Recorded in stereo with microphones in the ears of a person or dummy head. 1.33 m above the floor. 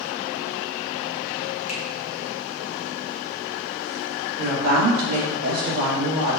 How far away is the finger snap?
About 0.9 m.